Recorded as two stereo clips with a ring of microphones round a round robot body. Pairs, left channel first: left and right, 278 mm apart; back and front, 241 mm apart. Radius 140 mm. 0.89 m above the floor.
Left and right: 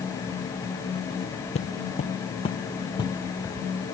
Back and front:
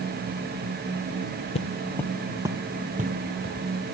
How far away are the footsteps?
About 1.2 m.